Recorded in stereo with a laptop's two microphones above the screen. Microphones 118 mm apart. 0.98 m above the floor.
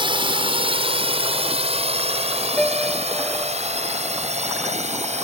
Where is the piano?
10° left (ahead or behind).